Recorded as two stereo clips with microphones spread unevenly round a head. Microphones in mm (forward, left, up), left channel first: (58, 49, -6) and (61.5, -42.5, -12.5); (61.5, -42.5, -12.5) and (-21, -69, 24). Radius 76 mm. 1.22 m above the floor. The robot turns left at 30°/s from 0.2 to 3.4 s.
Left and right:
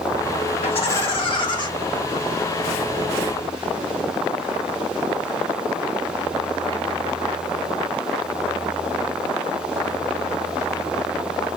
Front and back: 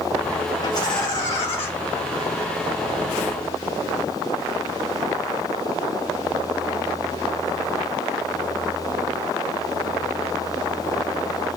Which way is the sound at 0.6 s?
85° left.